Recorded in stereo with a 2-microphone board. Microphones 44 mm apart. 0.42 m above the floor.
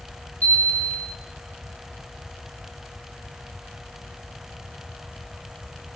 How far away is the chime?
About 2.5 m.